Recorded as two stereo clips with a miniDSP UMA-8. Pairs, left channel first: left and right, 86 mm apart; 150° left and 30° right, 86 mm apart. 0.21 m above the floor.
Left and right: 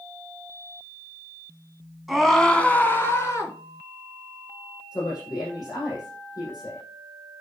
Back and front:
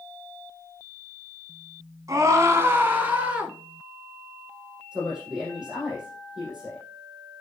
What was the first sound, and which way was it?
A scream, 5° right.